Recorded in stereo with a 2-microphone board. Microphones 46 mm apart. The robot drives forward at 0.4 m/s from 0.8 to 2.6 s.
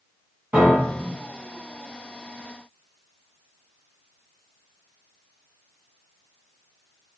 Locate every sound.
0.5 s a piano: 35° right (ahead or behind), 1.6 m; by 1.1 s 40° right (ahead or behind), 1.5 m